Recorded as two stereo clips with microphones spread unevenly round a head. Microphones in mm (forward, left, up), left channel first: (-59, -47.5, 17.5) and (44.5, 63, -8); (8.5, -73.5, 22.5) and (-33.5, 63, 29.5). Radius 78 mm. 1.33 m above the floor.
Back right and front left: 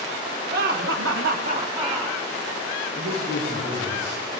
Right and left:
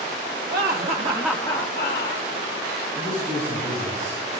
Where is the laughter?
80° left, 1.3 m; by 2.3 s 45° right, 1.6 m.